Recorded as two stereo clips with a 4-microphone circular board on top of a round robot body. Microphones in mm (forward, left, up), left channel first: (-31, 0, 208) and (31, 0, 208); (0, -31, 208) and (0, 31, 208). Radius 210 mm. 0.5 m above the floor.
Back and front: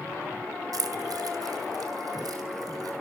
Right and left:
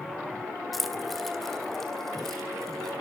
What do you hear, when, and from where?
0.7 s keys jangling: straight ahead, 1.9 m; by 2.9 s 5° right, 4.5 m